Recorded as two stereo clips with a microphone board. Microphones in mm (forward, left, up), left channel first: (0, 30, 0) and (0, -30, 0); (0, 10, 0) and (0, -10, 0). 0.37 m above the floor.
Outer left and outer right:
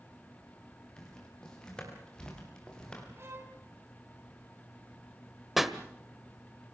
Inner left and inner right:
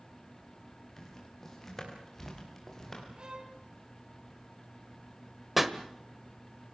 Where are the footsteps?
15° left (ahead or behind), 8 m.